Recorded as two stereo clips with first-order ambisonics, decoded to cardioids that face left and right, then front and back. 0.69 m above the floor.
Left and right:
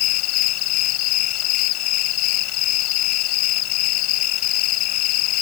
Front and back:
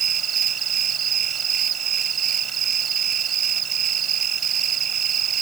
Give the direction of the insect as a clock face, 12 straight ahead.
8 o'clock.